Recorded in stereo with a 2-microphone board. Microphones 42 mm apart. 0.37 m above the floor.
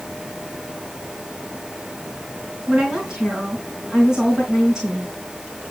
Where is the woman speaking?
15° right (ahead or behind), 3.5 m.